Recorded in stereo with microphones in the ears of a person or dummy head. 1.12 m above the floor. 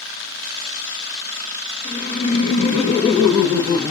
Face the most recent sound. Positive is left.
turn(degrees=10)  # may be behind; listen again after turning